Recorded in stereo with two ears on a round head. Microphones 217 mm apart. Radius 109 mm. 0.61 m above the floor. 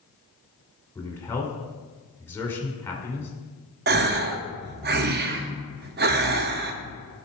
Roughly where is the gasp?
Right.